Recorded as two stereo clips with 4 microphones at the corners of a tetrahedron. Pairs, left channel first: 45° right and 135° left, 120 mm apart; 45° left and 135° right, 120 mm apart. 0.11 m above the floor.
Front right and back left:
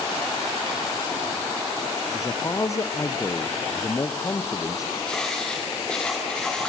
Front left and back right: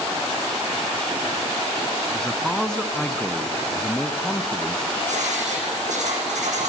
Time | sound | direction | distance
2.1 | a man speaking | 35° right | 1.3 m
5.1 | writing | 130° right | 6 m